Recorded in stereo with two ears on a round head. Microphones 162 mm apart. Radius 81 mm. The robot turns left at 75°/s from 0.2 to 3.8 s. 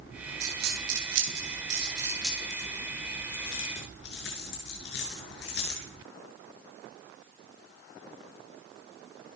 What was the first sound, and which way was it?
A dropped coin, 40° right (ahead or behind).